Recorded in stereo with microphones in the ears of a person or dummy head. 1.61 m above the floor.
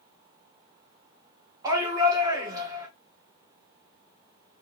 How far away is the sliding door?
I don't hear a sliding door.